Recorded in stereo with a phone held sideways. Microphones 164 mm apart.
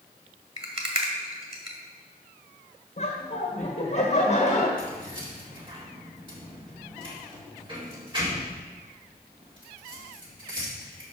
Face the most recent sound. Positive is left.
turn(degrees=-30)  # may be behind; listen again after turning